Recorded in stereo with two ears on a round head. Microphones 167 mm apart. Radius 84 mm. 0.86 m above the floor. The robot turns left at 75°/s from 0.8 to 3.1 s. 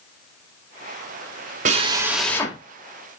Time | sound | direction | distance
1.6 | a drill | 140° right | 2 m